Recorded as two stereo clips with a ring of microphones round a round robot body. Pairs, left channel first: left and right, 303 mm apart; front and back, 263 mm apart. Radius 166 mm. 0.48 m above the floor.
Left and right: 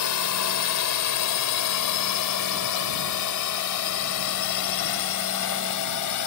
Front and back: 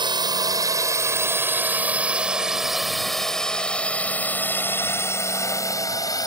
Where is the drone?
110° left; by 6.3 s 75° left.